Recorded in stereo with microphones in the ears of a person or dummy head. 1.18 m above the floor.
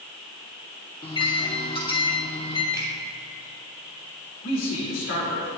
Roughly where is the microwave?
Left.